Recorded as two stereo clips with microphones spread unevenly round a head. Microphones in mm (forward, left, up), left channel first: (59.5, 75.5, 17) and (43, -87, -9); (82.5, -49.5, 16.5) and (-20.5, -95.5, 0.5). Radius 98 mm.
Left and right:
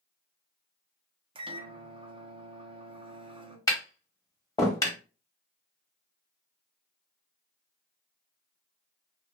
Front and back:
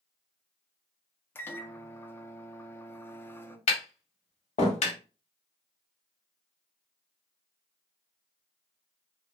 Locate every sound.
1.4 s a microwave: 50° right, 0.6 m
3.7 s tapping: 10° left, 1.3 m